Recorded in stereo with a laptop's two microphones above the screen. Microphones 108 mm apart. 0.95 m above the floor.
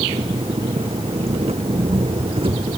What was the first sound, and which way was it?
An engine running, 65° right (ahead or behind).